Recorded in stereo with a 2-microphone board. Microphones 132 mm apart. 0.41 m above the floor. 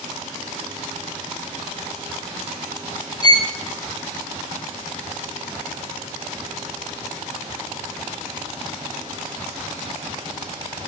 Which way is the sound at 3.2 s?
30° left (ahead or behind).